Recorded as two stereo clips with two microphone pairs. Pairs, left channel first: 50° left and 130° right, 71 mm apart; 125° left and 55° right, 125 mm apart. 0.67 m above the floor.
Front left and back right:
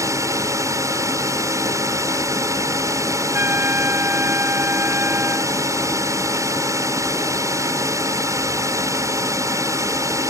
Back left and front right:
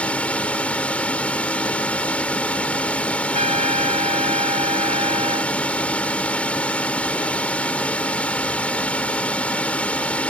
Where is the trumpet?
75° right.